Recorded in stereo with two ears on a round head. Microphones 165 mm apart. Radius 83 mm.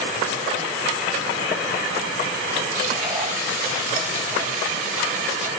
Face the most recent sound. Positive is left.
turn(degrees=-40)  # may be behind; listen again after turning